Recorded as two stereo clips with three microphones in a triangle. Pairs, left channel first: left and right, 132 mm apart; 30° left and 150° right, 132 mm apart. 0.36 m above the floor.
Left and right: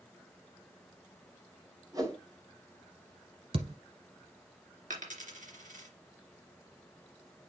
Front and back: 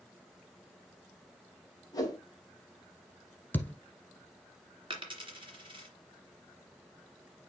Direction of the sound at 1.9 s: 30° right.